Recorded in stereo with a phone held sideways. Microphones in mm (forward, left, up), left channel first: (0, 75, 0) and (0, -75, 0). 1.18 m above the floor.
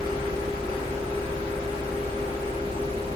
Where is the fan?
35° right (ahead or behind), 1.4 m.